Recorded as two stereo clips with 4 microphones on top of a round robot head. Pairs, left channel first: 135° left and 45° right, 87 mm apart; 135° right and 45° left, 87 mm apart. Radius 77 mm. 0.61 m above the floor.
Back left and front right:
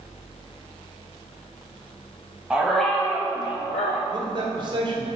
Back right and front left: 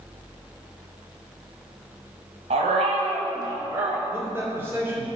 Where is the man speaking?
20° right, 1.9 m.